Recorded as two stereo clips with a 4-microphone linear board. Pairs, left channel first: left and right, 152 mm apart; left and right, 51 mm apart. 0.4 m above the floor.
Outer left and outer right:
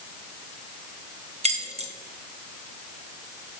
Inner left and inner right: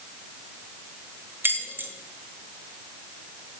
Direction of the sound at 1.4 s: 45° right (ahead or behind).